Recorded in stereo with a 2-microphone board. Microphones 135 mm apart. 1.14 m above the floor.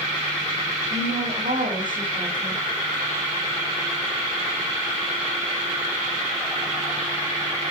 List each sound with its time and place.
0.9 s a woman speaking: 80° right, 10 m